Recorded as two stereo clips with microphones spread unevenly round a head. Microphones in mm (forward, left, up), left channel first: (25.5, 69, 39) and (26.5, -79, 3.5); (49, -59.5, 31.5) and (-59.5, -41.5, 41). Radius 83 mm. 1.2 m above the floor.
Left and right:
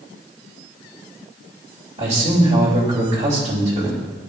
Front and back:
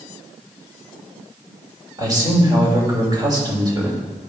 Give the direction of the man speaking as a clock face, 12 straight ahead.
5 o'clock.